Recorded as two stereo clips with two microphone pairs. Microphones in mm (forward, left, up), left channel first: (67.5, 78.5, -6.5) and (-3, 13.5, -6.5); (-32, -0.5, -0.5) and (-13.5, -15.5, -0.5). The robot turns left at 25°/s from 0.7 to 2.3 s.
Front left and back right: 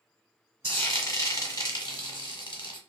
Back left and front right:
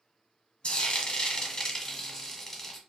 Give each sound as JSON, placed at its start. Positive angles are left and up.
{"t": 0.6, "sound": "frying", "azimuth_deg": 95, "distance_m": 0.9}